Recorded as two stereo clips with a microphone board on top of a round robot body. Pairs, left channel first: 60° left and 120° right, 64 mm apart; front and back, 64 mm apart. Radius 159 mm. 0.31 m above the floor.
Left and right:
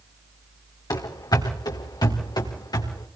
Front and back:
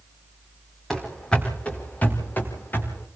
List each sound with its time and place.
0.9 s running footsteps: 85° left, 2 m; by 3.1 s 60° left, 4 m